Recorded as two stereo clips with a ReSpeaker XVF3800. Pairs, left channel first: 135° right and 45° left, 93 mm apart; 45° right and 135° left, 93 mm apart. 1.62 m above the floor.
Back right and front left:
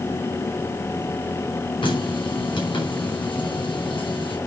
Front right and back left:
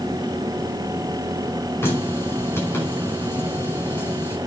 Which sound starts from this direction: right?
A running tap, at 1.8 s.